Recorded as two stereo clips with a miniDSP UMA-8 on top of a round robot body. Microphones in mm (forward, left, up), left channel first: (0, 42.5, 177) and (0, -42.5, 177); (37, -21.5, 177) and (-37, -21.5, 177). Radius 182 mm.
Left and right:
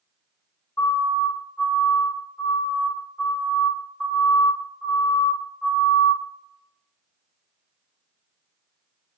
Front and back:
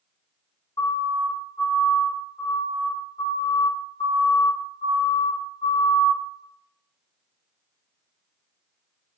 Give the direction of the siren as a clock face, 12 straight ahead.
11 o'clock.